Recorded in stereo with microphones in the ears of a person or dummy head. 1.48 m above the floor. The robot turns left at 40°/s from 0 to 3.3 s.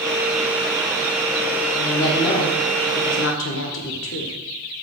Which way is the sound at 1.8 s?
160° left.